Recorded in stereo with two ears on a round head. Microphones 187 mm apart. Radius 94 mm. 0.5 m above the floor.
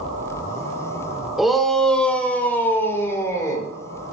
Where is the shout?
Centre (ahead or behind), 2 m; by 3.7 s 15° left (ahead or behind), 3 m.